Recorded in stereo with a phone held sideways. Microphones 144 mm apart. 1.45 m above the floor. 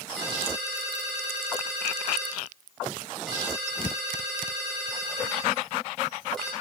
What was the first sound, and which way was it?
A ringtone, centre (ahead or behind).